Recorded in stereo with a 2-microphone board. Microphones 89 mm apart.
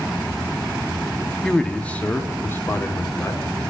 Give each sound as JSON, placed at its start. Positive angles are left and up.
{"t": 1.4, "sound": "a man speaking", "side_deg": 5, "distance_m": 1.1}